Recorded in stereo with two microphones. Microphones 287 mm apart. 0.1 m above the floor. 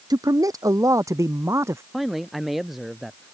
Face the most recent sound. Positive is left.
turn(degrees=0)  # may be behind; listen again after turning